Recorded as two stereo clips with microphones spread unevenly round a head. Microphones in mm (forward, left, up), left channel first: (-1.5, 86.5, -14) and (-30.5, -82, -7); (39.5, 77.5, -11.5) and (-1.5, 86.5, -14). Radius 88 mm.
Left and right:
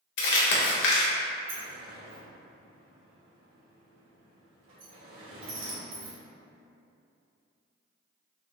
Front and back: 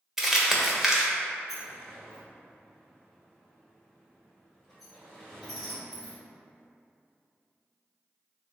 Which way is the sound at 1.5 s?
105° right.